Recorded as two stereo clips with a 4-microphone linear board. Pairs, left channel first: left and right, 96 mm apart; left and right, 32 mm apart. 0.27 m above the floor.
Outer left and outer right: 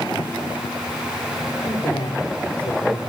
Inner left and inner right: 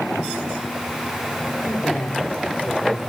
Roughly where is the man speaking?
Left.